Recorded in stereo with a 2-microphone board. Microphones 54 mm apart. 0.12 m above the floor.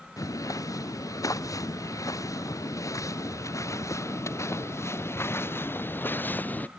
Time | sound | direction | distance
0.2 | footsteps | 90° left | ?